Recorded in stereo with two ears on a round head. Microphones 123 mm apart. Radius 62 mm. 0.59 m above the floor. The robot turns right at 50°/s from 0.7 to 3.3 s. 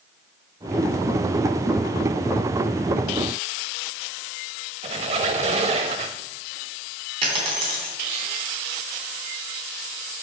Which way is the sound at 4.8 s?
45° right (ahead or behind).